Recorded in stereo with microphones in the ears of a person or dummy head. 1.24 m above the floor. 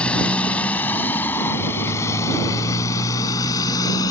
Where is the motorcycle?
5° left (ahead or behind); by 4.1 s 20° left (ahead or behind).